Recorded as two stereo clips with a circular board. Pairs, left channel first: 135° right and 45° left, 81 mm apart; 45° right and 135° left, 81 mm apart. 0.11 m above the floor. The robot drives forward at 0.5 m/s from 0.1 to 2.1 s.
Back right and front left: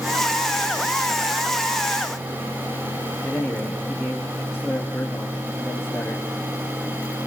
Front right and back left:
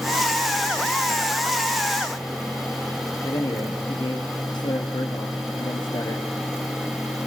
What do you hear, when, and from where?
3.2 s a man speaking: 40° right, 3.5 m